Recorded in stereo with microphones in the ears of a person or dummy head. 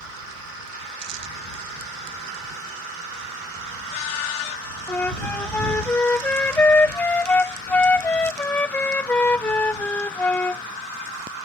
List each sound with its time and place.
4.9 s a flute: 5° left (ahead or behind)